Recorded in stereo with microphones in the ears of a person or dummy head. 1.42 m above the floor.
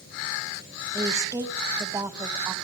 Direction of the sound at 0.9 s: 15° right (ahead or behind).